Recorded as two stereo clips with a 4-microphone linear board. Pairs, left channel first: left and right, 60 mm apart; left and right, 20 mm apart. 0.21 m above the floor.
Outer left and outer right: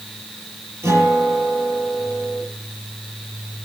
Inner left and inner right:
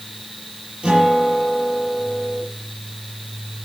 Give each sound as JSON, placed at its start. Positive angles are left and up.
{"t": 0.8, "sound": "a guitar", "side_deg": -50, "distance_m": 6.0}